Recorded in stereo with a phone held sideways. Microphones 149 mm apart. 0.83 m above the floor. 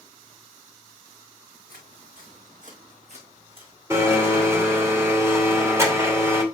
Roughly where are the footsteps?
Right.